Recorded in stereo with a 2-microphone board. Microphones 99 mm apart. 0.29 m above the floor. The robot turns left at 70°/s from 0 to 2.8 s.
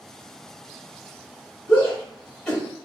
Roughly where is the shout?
Left.